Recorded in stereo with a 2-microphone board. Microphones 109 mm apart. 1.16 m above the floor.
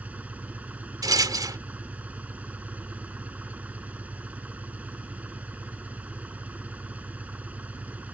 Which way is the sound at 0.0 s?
15° right (ahead or behind).